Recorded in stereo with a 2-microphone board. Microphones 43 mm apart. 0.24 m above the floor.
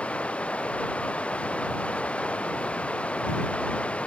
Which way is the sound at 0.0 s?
30° left (ahead or behind).